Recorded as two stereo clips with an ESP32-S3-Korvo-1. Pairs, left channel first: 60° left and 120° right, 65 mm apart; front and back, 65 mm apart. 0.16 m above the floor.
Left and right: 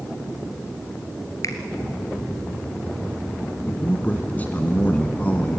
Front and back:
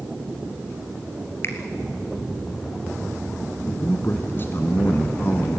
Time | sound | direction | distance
1.4 | a finger snap | 45° left | 2.5 m
3.7 | a man speaking | 15° left | 1.4 m